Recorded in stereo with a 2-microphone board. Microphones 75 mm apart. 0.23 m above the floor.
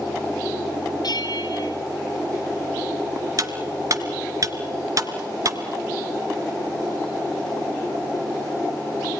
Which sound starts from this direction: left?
A bell, at 1.0 s.